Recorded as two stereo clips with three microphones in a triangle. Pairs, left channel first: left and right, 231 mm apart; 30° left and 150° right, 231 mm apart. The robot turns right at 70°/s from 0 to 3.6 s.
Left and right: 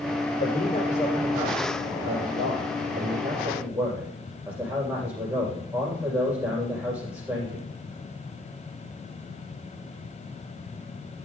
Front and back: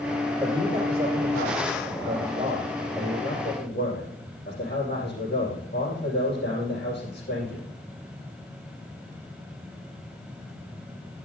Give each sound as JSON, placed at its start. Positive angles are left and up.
{"t": 0.4, "sound": "a man speaking", "azimuth_deg": 130, "distance_m": 6.0}